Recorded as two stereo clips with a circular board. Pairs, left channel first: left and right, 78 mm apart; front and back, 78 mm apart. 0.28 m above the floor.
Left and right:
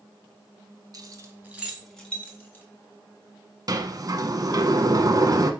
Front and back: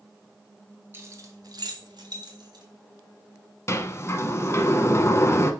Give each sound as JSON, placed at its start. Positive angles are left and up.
{"t": 0.9, "sound": "keys jangling", "azimuth_deg": -120, "distance_m": 1.5}
{"t": 3.7, "sound": "a sliding door", "azimuth_deg": -50, "distance_m": 0.8}